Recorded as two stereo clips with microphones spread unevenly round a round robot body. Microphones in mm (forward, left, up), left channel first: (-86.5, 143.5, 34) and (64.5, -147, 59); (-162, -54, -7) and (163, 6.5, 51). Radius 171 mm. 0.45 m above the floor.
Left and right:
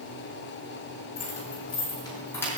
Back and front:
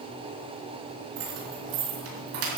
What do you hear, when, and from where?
1.2 s keys jangling: 50° left, 4.5 m; by 2.6 s 35° left, 5.5 m